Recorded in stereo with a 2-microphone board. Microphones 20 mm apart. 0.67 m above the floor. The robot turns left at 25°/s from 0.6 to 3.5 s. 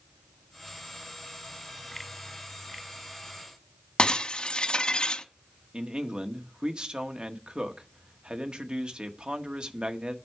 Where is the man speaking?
45° right (ahead or behind), 1.4 m.